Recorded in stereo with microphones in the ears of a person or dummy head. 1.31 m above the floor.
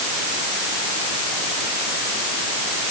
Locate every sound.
Only background noise.